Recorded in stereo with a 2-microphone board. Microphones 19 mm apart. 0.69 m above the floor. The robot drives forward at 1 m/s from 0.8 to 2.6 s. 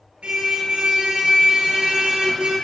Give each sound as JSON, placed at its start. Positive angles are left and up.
{"t": 0.2, "sound": "a car horn", "side_deg": -85, "distance_m": 6.5}